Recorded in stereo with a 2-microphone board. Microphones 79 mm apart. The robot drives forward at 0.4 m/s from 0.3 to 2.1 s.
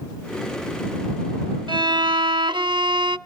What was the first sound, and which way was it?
A violin, 85° right.